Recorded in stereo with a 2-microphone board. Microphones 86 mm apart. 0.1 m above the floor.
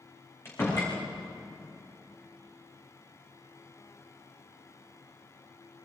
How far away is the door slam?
About 5.5 m.